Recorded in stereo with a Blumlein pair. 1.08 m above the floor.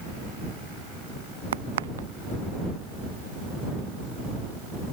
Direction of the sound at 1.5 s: 60° right.